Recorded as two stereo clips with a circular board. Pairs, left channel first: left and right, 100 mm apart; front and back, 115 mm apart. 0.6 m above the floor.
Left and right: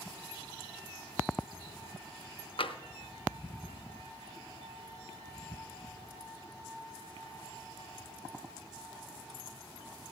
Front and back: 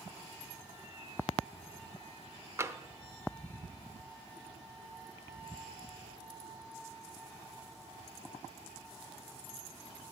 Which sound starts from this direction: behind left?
Tapping, at 2.6 s.